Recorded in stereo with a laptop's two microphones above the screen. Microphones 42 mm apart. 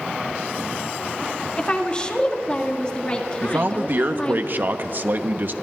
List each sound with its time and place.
1.6 s a woman speaking: 25° left (ahead or behind), 2 m
3.4 s a man speaking: 50° right (ahead or behind), 0.9 m